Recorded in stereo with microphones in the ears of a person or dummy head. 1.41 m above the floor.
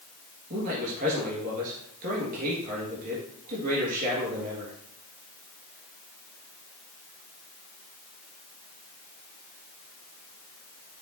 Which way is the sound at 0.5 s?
45° right (ahead or behind).